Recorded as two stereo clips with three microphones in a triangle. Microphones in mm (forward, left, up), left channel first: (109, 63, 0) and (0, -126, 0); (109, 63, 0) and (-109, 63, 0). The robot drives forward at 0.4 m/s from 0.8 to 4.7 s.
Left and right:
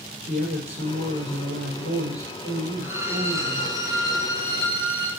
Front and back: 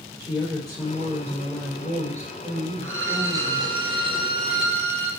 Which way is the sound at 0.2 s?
100° right.